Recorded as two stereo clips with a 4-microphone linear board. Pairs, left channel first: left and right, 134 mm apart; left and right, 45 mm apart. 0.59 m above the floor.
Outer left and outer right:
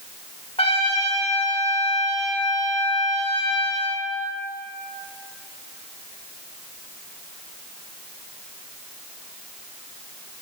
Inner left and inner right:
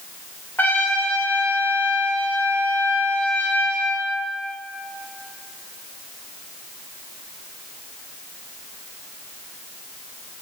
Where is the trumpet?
45° left (ahead or behind), 1.7 m.